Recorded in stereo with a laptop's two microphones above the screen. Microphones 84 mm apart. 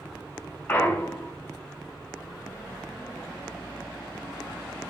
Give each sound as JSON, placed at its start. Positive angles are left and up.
{"t": 0.7, "sound": "a clunk", "side_deg": 20, "distance_m": 0.7}